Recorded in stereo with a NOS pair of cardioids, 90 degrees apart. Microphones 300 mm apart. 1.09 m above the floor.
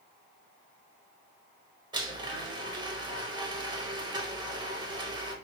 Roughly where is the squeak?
No squeak in this recording.